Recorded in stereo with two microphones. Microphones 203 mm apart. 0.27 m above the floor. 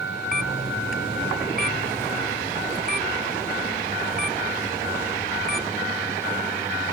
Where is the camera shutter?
45° right (ahead or behind).